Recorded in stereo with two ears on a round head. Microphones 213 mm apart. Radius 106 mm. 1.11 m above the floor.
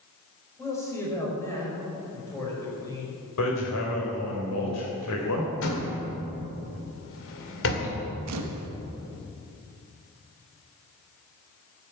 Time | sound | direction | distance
0.6 | a man speaking | 10° left (ahead or behind) | 5.5 m
3.4 | hammering | 80° left | 3.5 m
5.6 | a door slam | 60° left (ahead or behind) | 2.5 m
8.3 | a camera shutter | 80° right | 1.1 m